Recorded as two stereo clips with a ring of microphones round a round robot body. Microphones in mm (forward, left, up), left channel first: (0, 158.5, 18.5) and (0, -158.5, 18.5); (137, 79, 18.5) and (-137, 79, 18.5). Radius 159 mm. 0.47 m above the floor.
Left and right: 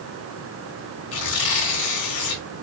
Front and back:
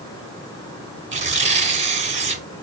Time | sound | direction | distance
1.1 | tearing paper | 115° left | 2 m